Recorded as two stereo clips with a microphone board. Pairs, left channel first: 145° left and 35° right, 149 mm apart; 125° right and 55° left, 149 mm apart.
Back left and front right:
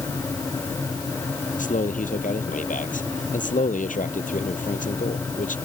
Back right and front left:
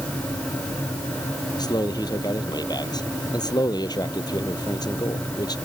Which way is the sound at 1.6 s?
175° left.